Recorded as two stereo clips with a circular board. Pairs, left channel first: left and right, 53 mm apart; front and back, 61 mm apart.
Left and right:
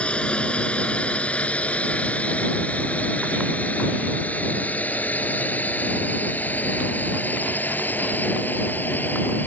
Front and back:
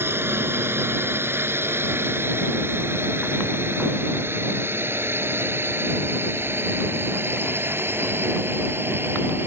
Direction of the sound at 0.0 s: 150° left.